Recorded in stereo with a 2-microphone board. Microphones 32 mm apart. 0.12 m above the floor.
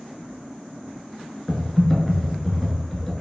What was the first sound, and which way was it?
Typing on a keyboard, 10° left (ahead or behind).